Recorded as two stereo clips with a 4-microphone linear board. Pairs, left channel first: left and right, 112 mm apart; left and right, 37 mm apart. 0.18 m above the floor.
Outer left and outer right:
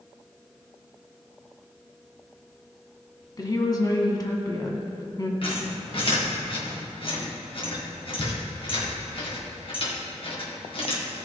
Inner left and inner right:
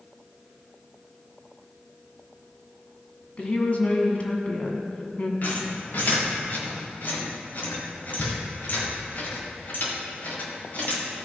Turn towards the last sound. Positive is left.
turn(degrees=50)  # may be behind; listen again after turning